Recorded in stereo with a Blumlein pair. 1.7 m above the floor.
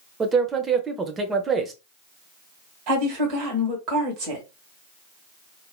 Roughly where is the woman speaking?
Ahead right.